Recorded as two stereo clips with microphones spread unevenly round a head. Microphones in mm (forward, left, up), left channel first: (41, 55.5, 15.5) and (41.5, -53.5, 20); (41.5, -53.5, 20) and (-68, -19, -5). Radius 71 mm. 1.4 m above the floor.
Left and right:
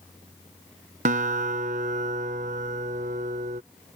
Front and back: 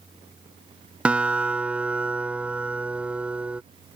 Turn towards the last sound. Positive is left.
turn(degrees=-120)